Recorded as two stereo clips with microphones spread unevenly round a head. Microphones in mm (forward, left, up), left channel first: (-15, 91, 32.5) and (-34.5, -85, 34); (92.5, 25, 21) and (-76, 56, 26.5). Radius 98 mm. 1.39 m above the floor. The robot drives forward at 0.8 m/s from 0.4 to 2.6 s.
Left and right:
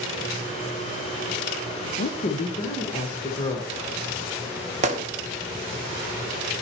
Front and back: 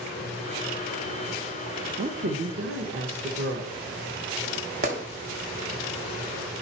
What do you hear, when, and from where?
2.0 s a woman speaking: 125° left, 0.7 m; by 3.7 s 150° left, 1.1 m
4.8 s a gunshot: 145° right, 0.8 m